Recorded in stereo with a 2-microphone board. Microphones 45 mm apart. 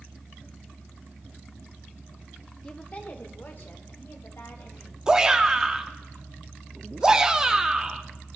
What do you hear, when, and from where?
2.6 s a woman speaking: 25° left (ahead or behind), 1.3 m; by 5.0 s 65° left (ahead or behind), 4.5 m
5.1 s a shout: 15° right (ahead or behind), 0.9 m